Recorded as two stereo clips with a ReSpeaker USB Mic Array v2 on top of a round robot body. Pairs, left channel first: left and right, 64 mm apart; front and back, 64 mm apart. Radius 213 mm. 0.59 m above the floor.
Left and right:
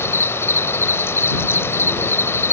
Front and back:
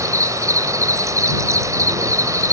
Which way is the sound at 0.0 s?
140° left.